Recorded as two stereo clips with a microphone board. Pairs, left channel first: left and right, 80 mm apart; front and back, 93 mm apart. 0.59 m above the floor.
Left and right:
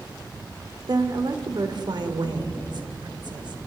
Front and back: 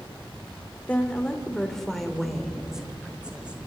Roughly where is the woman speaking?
Right.